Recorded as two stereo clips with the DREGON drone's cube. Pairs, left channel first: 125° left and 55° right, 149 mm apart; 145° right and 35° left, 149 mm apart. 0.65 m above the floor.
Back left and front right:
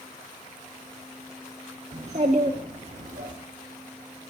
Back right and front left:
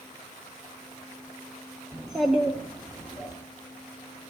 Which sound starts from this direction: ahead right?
A child speaking, at 1.9 s.